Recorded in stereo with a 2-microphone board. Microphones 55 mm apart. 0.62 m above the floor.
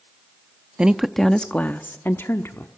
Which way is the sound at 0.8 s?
20° right (ahead or behind).